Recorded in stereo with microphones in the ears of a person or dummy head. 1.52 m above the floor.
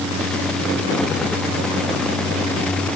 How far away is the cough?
I don't hear a cough.